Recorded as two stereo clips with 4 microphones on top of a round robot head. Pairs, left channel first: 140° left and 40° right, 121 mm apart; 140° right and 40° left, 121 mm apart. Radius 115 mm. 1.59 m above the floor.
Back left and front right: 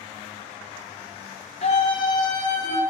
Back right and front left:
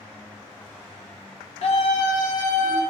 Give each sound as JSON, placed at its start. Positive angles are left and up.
{"t": 1.6, "sound": "a scream", "azimuth_deg": 180, "distance_m": 1.8}